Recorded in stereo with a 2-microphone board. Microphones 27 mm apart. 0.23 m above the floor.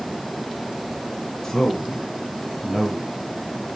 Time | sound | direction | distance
1.4 | a man speaking | 20° left (ahead or behind) | 2.5 m